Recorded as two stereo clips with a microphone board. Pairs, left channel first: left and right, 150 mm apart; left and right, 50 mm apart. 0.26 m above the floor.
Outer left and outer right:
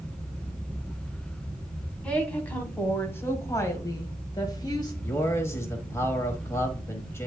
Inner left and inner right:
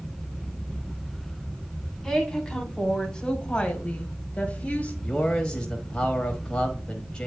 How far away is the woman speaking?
About 2 m.